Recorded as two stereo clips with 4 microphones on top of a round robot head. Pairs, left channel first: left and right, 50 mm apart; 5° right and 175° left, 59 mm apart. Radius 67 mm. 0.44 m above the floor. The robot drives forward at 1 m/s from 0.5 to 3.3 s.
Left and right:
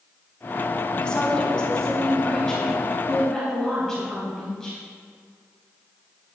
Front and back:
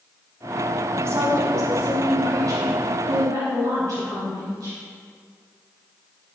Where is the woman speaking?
155° left, 1.9 m; by 4.8 s 170° left, 4 m.